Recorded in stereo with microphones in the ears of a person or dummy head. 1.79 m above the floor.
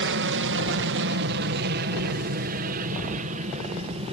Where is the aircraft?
60° right (ahead or behind); by 4.1 s 35° right (ahead or behind).